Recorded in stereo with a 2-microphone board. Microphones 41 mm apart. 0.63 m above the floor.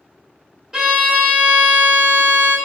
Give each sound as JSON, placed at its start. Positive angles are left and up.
{"t": 0.7, "sound": "a violin", "side_deg": -10, "distance_m": 1.1}